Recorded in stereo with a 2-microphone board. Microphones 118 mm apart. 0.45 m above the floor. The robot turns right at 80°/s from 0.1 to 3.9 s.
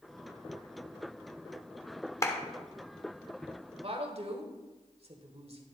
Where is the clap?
25° left (ahead or behind), 1.0 m; by 2.4 s 20° left (ahead or behind), 1.0 m.